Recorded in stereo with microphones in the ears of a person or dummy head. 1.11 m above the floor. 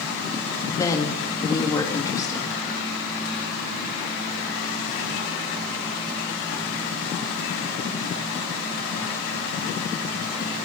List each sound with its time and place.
0.7 s a woman speaking: 20° left (ahead or behind), 1.5 m